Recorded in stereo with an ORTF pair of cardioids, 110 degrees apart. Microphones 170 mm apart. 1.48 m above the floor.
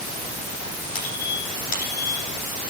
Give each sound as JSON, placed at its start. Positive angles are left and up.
{"t": 0.9, "sound": "a squeak", "azimuth_deg": 60, "distance_m": 9.0}